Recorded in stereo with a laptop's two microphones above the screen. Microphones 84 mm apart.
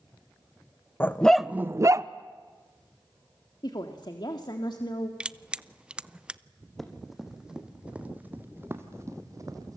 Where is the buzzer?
I don't hear a buzzer.